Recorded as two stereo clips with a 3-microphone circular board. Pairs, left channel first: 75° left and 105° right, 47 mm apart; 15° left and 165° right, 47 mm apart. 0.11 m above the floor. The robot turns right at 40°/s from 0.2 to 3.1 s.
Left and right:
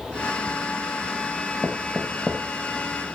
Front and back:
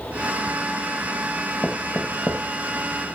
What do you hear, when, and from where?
1.6 s knocking: 55° right, 2 m; by 2.4 s 25° right, 2 m